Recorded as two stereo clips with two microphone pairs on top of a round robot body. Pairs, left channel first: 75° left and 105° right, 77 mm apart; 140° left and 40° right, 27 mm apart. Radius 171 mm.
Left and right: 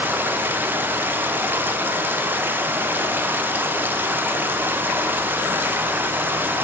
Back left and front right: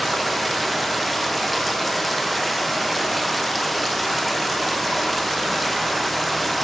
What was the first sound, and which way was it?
Running water, 125° right.